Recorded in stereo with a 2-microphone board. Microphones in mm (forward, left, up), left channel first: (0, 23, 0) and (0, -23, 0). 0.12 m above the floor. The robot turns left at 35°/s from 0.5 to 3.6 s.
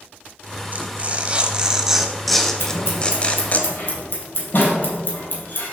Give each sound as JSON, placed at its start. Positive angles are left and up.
{"t": 0.7, "sound": "tearing paper", "side_deg": -40, "distance_m": 0.9}
{"t": 2.6, "sound": "scissors", "side_deg": 70, "distance_m": 3.0}